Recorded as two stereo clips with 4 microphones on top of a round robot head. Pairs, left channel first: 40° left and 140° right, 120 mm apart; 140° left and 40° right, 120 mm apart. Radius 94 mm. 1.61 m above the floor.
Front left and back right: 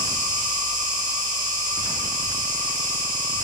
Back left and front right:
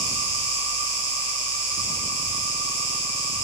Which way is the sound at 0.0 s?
110° right.